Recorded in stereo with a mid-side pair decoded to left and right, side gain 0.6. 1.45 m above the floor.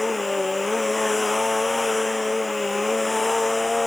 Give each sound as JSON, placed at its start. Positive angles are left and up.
{"t": 0.0, "sound": "a machine running", "azimuth_deg": 15}